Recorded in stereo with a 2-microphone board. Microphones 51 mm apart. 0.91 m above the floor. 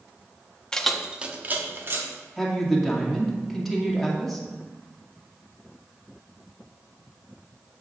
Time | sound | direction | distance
0.7 | keys jangling | 15° left (ahead or behind) | 0.8 m
2.4 | a woman speaking | 5° left (ahead or behind) | 2 m